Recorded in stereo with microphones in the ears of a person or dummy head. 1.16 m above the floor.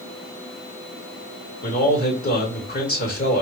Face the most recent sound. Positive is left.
turn(degrees=50)  # may be behind; listen again after turning